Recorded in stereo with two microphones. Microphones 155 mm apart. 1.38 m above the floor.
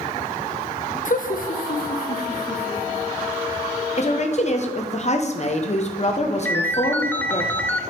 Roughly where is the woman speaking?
Left.